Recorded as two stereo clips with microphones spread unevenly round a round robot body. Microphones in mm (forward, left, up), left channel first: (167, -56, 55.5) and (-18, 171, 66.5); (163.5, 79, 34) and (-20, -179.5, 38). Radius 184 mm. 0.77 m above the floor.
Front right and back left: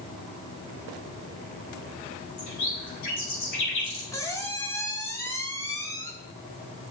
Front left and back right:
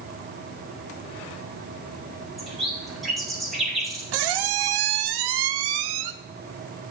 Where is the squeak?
130° right, 0.8 m.